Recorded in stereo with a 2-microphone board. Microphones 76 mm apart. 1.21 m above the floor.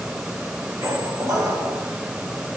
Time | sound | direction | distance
0.8 | a squeak | 55° right (ahead or behind) | 2 m